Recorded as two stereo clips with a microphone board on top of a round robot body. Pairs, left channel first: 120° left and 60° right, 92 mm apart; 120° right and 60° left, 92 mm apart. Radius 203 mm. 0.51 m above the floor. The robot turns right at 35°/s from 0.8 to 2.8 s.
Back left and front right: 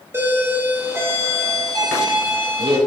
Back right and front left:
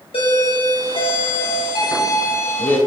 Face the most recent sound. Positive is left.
turn(degrees=-55)